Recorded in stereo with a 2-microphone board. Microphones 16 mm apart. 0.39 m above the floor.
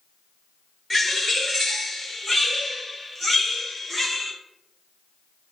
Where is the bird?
10° left (ahead or behind), 1.3 m.